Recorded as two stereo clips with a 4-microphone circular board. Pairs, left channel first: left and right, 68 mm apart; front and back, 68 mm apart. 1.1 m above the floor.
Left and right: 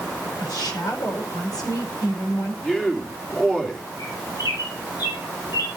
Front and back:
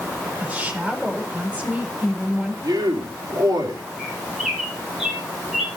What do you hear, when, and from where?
0.4 s a woman speaking: 110° left, 4 m
2.6 s a man speaking: 170° left, 3 m
4.0 s a bird: 95° left, 3 m